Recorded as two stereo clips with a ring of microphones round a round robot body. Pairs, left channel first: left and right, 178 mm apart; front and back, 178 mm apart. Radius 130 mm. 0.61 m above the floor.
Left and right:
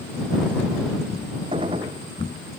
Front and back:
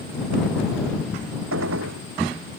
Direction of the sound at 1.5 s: 165° right.